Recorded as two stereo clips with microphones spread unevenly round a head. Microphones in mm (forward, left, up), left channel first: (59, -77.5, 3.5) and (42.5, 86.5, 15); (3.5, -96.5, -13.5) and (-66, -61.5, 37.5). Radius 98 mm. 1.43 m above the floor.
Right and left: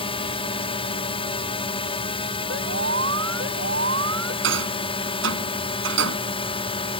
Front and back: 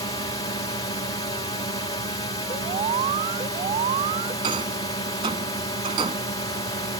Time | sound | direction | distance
0.0 | a drone | 30° right | ?
2.5 | an alarm | 135° left | ?
4.4 | a rattle | 105° left | ?